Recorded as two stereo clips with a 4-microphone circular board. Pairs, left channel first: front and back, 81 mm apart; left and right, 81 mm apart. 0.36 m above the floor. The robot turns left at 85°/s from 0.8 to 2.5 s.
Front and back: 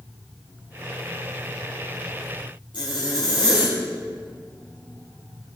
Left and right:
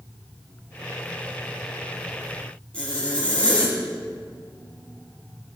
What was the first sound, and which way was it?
A zipper, 15° left.